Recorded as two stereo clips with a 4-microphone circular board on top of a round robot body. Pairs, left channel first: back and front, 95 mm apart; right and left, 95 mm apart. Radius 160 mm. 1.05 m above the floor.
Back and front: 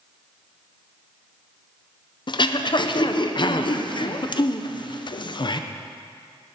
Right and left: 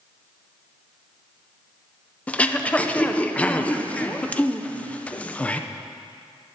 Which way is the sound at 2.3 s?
165° right.